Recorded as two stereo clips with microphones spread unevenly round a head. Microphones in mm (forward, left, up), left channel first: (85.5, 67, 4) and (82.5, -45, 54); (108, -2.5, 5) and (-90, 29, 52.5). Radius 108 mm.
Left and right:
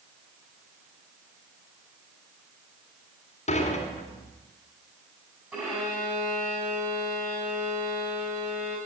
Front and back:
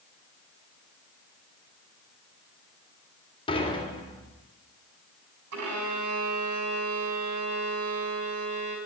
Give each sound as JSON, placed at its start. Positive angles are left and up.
{"t": 3.5, "sound": "dishes clattering", "azimuth_deg": 60, "distance_m": 2.5}
{"t": 5.5, "sound": "a violin", "azimuth_deg": -175, "distance_m": 3.5}